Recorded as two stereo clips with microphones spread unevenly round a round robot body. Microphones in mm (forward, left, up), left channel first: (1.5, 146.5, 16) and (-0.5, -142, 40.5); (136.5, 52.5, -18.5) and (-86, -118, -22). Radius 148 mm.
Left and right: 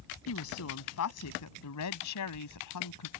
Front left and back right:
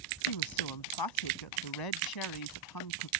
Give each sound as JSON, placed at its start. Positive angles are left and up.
{"t": 0.3, "sound": "a woman speaking", "azimuth_deg": 45}